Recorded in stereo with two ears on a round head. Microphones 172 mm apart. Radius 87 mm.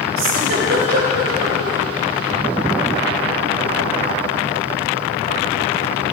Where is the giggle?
70° right (ahead or behind), 3.5 m.